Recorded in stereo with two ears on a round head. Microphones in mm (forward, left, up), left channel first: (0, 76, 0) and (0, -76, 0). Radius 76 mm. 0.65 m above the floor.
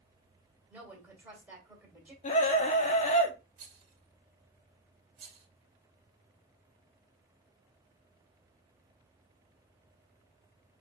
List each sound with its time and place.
0.7 s a woman speaking: 10° right (ahead or behind), 1.9 m
2.2 s a scream: 40° left (ahead or behind), 0.9 m
3.6 s a rattle: 45° right (ahead or behind), 1.5 m